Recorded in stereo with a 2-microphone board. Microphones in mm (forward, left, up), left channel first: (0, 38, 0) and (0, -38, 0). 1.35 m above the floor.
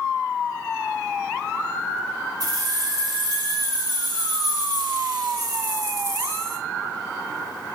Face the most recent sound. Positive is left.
turn(degrees=-45)  # may be behind; listen again after turning